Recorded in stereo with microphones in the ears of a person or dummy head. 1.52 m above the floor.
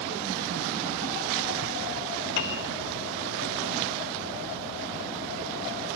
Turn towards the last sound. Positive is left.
turn(degrees=55)  # may be behind; listen again after turning